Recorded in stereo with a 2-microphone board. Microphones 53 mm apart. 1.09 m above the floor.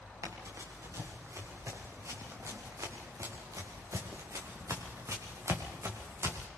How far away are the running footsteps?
About 6 m.